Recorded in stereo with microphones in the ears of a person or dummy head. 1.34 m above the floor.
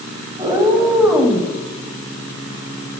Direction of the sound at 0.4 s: 20° right (ahead or behind).